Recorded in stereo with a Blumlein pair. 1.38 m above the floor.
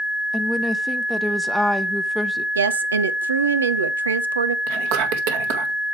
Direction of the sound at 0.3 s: 5° right.